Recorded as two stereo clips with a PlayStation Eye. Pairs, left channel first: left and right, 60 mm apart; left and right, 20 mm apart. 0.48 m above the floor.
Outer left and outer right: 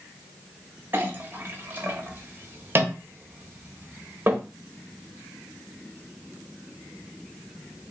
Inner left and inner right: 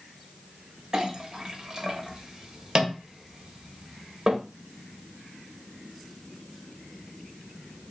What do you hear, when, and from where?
0.9 s a clink: 35° right (ahead or behind), 1.0 m